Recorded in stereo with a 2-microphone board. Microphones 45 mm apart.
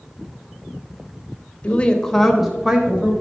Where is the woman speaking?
30° left (ahead or behind), 0.9 m; by 3.1 s 25° right (ahead or behind), 1.2 m.